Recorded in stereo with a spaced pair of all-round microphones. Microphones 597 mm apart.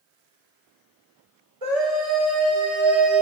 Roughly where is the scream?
Right.